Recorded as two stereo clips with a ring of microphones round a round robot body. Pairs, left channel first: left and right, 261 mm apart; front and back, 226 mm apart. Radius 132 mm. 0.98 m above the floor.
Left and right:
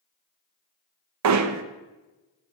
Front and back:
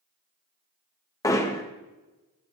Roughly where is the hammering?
Right.